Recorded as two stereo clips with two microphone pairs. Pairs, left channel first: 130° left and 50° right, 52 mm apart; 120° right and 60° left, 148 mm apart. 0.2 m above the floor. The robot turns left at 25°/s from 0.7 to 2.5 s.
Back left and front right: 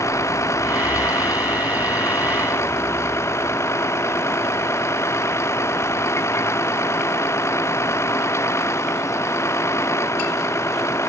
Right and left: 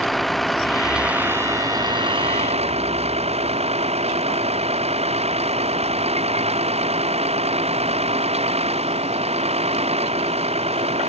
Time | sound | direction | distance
0.0 | a vehicle | 150° left | ?